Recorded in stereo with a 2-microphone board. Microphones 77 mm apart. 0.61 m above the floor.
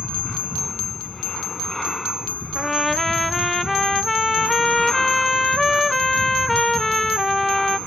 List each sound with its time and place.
0.0 s an aircraft: 5° left (ahead or behind)
2.5 s a trumpet: 5° left (ahead or behind)